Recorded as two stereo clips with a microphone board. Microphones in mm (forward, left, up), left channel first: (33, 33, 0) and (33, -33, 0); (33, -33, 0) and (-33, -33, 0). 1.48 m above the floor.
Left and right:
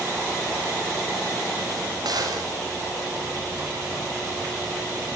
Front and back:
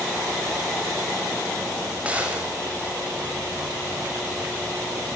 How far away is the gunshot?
About 7.5 m.